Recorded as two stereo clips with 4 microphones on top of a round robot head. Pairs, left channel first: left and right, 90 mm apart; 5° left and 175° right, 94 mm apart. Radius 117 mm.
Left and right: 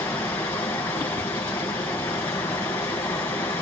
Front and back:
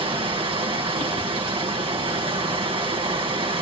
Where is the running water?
160° left, 2.5 m.